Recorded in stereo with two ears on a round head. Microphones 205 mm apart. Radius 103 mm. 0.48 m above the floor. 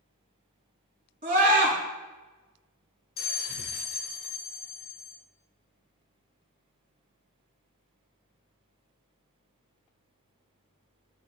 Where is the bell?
45° left (ahead or behind), 1.0 m.